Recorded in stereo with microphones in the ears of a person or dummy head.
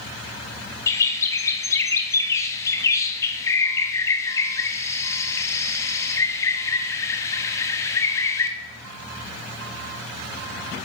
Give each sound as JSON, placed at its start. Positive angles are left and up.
{"t": 0.9, "sound": "a bird", "side_deg": 15, "distance_m": 0.6}